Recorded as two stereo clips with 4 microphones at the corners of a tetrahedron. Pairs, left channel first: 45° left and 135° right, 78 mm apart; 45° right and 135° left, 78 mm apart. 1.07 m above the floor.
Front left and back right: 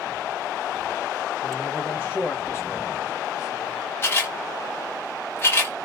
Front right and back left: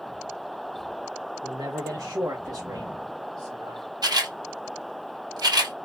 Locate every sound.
1.4 s a man speaking: 120° left, 1.2 m; by 3.9 s 85° left, 2.5 m
4.0 s a camera shutter: 105° left, 2.0 m